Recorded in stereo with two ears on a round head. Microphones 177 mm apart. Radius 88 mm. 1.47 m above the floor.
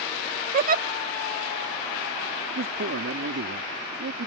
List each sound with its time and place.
0.5 s a giggle: 45° right (ahead or behind)
2.5 s a man speaking: 65° right (ahead or behind)